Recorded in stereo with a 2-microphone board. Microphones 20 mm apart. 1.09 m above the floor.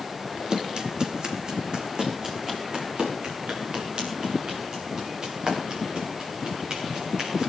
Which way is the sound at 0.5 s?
45° right (ahead or behind).